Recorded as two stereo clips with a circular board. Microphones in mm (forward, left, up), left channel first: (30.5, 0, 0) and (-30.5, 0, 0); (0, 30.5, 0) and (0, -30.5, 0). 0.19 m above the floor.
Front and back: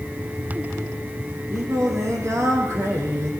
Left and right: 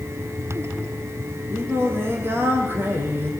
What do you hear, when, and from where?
1.5 s singing: 140° right, 6 m